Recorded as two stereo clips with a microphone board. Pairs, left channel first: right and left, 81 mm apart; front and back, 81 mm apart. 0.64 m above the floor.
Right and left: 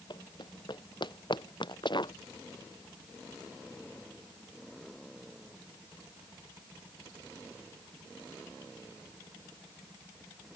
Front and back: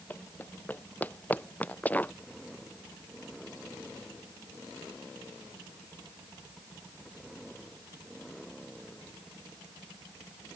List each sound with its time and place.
0.1 s running footsteps: 65° right; by 2.1 s 70° right